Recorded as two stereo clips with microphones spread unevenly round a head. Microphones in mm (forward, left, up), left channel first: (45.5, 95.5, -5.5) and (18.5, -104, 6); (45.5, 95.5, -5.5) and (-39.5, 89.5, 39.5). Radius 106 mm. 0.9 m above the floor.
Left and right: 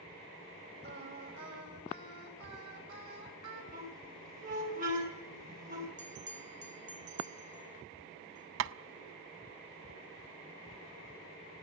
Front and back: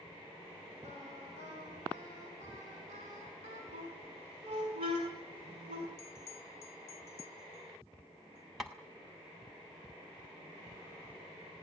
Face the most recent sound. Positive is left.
turn(degrees=-80)